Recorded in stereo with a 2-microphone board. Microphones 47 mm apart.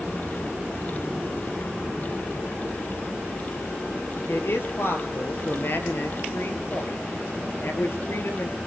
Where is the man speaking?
55° left (ahead or behind), 3 m.